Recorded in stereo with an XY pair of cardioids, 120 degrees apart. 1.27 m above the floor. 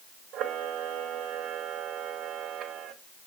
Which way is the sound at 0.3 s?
65° right.